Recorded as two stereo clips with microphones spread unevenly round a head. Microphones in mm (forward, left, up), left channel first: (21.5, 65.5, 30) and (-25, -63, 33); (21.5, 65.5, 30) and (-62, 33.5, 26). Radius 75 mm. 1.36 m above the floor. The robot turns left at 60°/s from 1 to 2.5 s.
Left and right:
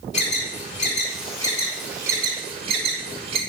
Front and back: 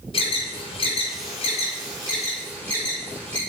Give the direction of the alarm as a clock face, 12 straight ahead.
11 o'clock.